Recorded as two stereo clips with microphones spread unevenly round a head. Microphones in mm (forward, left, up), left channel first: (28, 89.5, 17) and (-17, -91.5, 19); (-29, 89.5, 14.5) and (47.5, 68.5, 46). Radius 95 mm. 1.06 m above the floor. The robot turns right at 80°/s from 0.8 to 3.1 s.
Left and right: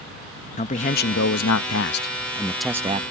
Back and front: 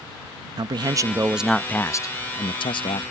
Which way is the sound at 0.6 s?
20° left.